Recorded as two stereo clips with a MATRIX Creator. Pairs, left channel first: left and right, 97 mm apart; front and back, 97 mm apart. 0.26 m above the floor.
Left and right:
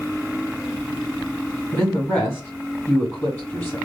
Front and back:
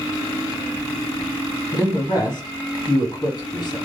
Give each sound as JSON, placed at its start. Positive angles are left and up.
{"t": 1.7, "sound": "a man speaking", "azimuth_deg": 30, "distance_m": 2.0}